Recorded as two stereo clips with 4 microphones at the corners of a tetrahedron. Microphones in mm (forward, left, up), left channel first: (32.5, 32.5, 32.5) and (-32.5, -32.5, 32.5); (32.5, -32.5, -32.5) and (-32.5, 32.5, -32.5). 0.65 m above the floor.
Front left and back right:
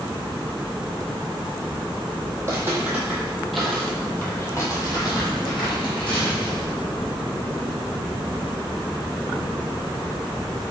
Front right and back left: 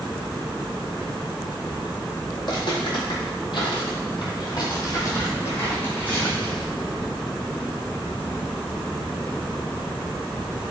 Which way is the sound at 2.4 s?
75° right.